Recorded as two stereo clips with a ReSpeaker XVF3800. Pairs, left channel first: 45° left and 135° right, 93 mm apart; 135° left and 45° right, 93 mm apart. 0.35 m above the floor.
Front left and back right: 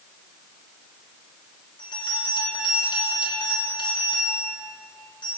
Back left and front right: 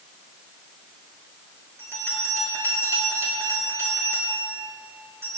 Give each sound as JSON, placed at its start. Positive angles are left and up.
{"t": 1.8, "sound": "a bell", "azimuth_deg": 15, "distance_m": 6.0}